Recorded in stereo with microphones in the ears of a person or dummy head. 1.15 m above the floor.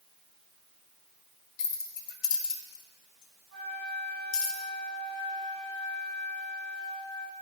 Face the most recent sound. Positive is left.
turn(degrees=-75)  # may be behind; listen again after turning